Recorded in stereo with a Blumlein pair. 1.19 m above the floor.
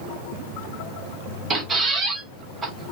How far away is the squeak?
About 0.7 m.